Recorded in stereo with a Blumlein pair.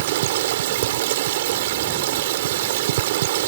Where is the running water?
55° right.